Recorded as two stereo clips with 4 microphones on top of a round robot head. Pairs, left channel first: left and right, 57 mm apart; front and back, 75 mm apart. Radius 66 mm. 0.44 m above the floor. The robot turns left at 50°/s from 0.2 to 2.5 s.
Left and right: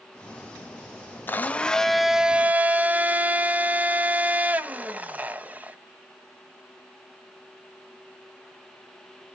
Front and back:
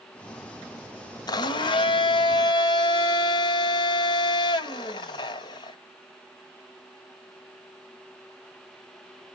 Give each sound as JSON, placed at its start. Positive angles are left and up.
{"t": 1.3, "sound": "a blender", "azimuth_deg": 35, "distance_m": 0.9}